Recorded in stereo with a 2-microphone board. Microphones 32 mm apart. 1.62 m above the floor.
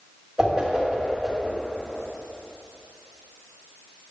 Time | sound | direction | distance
0.4 | a whoosh | 25° right (ahead or behind) | 3.5 m